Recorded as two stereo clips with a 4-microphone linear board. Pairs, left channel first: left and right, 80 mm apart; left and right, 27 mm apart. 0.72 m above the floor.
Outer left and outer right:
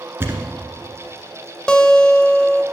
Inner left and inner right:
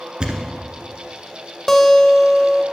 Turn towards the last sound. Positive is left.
turn(degrees=10)  # may be behind; listen again after turning